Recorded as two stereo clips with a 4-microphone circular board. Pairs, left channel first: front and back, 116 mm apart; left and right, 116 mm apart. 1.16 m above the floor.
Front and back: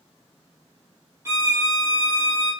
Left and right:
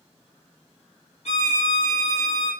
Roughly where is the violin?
Behind left.